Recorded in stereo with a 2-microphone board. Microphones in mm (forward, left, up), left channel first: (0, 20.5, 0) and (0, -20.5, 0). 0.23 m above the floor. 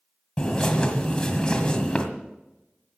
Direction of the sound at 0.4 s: 20° left (ahead or behind).